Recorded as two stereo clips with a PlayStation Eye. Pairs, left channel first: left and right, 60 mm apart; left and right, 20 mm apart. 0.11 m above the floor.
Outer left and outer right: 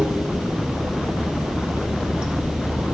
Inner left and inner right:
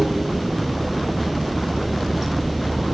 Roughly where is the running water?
Centre.